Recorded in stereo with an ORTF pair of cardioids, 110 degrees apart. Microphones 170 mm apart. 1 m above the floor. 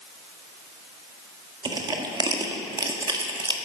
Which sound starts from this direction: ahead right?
Crushing, at 1.6 s.